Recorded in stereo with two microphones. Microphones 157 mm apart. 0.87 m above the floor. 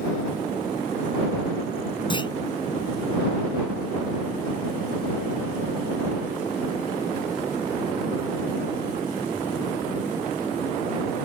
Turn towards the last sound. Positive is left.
turn(degrees=30)  # may be behind; listen again after turning